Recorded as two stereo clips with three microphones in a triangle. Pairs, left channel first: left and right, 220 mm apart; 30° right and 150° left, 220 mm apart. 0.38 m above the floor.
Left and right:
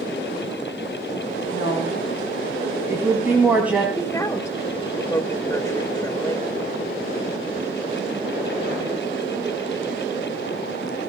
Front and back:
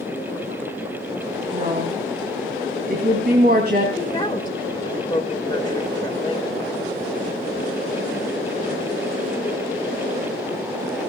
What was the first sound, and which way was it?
A woman speaking, 160° right.